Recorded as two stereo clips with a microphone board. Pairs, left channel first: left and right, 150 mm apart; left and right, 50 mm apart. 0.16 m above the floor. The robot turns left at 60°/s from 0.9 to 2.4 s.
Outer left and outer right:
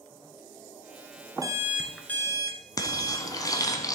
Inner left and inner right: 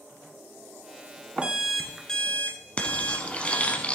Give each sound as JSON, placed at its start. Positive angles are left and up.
{"t": 1.4, "sound": "an alarm clock", "azimuth_deg": -150, "distance_m": 1.2}
{"t": 2.8, "sound": "frying", "side_deg": 25, "distance_m": 1.1}